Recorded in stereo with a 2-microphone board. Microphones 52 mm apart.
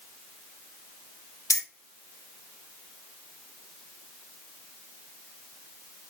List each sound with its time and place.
1.5 s keys jangling: 80° left, 0.9 m